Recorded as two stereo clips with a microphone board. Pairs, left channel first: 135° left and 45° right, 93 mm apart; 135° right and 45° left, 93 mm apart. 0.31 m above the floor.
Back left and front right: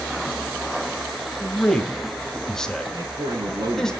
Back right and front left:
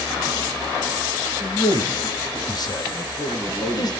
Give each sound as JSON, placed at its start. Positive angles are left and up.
{"t": 1.4, "sound": "a man speaking", "azimuth_deg": -145, "distance_m": 1.7}
{"t": 2.9, "sound": "a man speaking", "azimuth_deg": -70, "distance_m": 8.5}